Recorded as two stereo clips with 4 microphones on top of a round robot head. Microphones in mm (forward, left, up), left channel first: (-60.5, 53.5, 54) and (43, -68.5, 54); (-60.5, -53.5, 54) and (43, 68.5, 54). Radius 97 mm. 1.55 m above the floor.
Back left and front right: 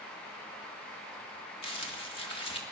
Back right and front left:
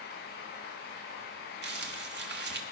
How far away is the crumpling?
About 1.9 m.